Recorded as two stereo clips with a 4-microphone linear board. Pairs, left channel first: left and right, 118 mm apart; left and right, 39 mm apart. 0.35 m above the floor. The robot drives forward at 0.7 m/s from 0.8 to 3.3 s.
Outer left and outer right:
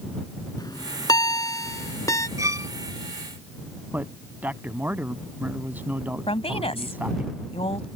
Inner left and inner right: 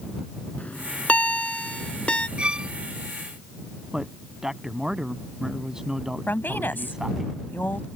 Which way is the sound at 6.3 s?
60° left (ahead or behind).